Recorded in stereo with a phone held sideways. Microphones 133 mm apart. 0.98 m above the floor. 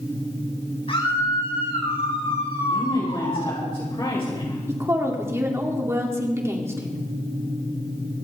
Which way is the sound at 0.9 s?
45° left (ahead or behind).